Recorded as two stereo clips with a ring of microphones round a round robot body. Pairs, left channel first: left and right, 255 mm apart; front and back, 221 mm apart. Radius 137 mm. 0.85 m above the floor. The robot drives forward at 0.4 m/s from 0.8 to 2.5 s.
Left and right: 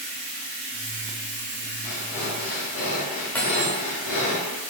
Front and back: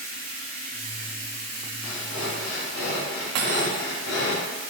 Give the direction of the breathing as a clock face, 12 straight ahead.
11 o'clock.